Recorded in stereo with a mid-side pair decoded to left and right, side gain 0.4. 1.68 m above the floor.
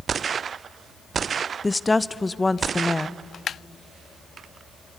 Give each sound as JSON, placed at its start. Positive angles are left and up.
{"t": 1.6, "sound": "a woman speaking", "azimuth_deg": 20, "distance_m": 0.6}